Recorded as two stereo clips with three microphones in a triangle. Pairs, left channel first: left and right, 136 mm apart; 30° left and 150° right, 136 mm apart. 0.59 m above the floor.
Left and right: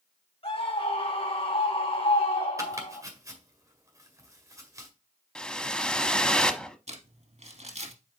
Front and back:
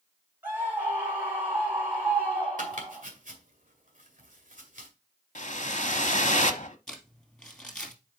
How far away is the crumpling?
About 2.5 m.